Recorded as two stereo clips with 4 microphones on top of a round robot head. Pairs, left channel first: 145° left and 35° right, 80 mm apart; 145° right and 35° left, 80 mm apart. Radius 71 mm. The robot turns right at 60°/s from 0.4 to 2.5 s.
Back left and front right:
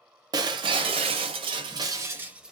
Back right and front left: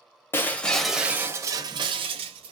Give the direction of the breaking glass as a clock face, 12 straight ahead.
3 o'clock.